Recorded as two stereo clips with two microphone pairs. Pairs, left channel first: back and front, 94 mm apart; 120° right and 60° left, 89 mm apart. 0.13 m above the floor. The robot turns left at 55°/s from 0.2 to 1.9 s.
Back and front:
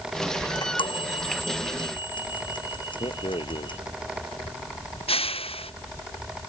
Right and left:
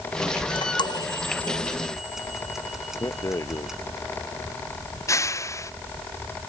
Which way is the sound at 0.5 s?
135° right.